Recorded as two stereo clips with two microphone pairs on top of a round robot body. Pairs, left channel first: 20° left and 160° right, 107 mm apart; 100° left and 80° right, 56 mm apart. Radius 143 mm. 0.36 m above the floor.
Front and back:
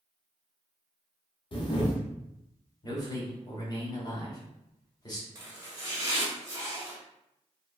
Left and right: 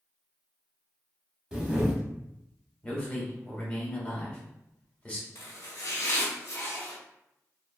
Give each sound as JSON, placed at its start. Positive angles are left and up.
{"t": 1.5, "sound": "a camera shutter", "azimuth_deg": 0, "distance_m": 1.0}
{"t": 2.8, "sound": "a man speaking", "azimuth_deg": 50, "distance_m": 1.2}
{"t": 5.3, "sound": "chopping", "azimuth_deg": 145, "distance_m": 0.7}